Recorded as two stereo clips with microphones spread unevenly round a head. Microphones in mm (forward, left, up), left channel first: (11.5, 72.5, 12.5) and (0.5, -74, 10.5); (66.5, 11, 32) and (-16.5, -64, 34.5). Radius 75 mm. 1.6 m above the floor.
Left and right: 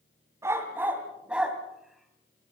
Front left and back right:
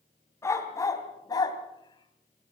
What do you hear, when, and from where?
0.4 s a dog barking: 20° right, 3 m; by 2.5 s 5° left, 2.5 m